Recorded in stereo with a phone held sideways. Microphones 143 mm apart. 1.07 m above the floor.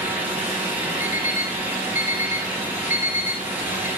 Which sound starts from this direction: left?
An alarm clock, at 1.0 s.